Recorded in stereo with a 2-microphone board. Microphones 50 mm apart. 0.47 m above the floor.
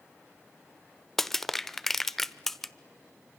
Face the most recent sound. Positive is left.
turn(degrees=5)  # may be behind; listen again after turning